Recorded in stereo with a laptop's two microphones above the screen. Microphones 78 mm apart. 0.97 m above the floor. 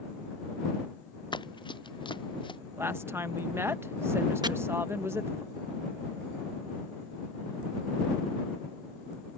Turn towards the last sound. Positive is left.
turn(degrees=-60)  # may be behind; listen again after turning